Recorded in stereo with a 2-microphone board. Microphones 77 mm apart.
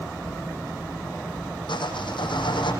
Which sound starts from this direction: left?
Sawing, at 1.7 s.